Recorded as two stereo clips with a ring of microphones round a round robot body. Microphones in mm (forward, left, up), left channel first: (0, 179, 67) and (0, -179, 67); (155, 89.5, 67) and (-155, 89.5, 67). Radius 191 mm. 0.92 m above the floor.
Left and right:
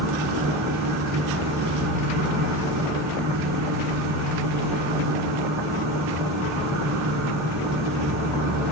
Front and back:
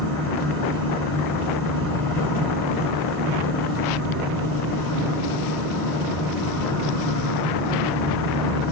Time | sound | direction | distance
0.0 | an insect | 130° right | 1.2 m